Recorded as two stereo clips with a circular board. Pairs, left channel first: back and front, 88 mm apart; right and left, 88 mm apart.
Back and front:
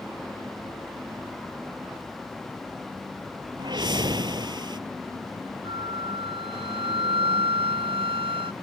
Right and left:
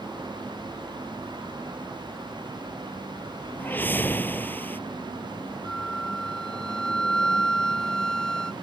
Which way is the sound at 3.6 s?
25° right.